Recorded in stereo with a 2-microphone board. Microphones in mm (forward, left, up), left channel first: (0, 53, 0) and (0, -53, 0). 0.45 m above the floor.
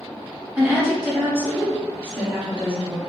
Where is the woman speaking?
5° right (ahead or behind), 0.9 m.